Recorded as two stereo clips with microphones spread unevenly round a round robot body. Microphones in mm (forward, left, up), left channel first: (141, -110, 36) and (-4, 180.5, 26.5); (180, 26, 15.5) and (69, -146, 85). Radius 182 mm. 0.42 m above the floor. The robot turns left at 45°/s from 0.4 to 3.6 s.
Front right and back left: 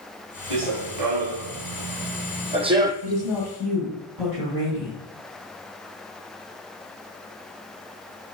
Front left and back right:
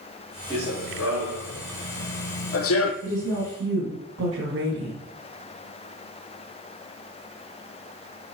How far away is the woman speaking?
About 2 m.